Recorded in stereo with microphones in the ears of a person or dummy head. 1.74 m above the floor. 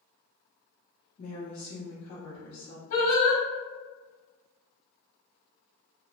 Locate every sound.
1.2 s a woman speaking: 45° left (ahead or behind), 1.0 m
2.9 s singing: 50° left (ahead or behind), 1.3 m